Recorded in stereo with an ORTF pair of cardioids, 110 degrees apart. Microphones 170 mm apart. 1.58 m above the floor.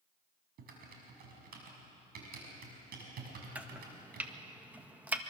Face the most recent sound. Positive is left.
turn(degrees=-10)